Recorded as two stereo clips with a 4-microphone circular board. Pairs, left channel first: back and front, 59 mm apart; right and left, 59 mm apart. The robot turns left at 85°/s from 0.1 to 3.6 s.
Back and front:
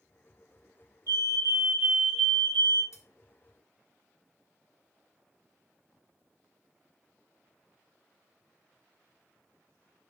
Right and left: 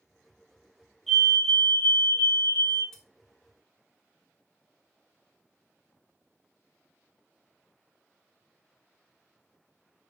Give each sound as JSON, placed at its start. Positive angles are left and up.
{"t": 1.1, "sound": "a fire alarm", "azimuth_deg": 0, "distance_m": 3.5}
{"t": 2.9, "sound": "cutlery clinking", "azimuth_deg": -170, "distance_m": 2.0}